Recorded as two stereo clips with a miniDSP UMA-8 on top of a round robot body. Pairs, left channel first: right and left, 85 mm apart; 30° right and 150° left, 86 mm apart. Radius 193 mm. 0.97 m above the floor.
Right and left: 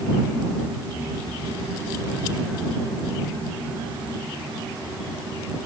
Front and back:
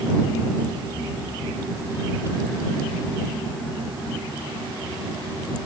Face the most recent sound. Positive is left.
No sound to turn to.